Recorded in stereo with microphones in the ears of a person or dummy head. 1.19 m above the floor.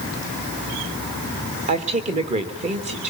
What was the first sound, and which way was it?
A woman speaking, 35° right (ahead or behind).